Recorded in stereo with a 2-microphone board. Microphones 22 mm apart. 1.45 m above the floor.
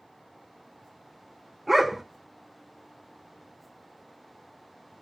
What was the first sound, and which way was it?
A dog barking, 10° right (ahead or behind).